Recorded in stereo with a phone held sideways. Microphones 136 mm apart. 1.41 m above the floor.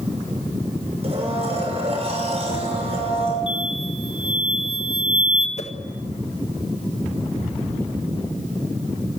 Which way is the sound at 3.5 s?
40° left (ahead or behind).